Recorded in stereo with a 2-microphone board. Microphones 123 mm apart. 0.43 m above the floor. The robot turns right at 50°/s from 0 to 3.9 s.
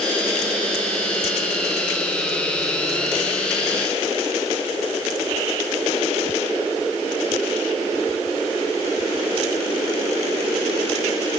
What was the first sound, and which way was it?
Only background noise.